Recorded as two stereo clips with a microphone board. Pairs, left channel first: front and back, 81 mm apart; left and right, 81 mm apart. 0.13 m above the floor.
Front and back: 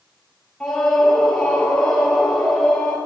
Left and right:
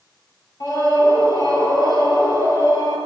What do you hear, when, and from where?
0.6 s a scream: 80° left, 3 m